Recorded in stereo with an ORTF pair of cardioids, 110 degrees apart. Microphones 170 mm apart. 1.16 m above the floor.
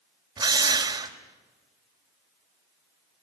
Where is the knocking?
I don't hear knocking.